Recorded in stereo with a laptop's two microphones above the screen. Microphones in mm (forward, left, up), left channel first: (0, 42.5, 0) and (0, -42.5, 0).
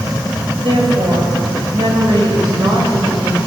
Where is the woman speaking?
75° right (ahead or behind), 4 m.